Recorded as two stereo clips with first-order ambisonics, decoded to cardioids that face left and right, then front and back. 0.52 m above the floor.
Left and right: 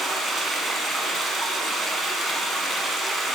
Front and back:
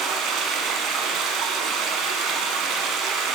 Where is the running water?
165° right, 0.7 m.